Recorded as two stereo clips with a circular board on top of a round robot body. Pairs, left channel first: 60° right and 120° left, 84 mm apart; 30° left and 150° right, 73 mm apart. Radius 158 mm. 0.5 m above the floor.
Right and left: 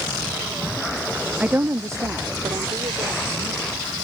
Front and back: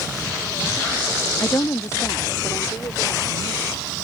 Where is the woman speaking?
55° left; by 3.9 s 80° left.